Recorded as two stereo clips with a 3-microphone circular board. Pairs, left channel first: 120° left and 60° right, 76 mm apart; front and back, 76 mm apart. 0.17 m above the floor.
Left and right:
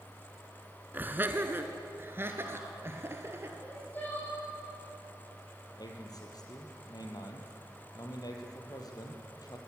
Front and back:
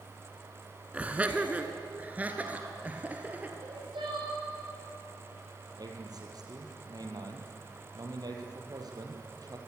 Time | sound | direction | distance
0.9 | laughter | 115° right | 1.5 m
3.6 | crying | 175° right | 9 m
5.8 | a man speaking | 150° left | 4 m